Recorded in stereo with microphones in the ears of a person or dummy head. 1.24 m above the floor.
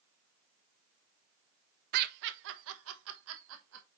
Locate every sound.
1.9 s laughter: 50° right (ahead or behind), 1.0 m; by 3.9 s 75° right (ahead or behind), 1.7 m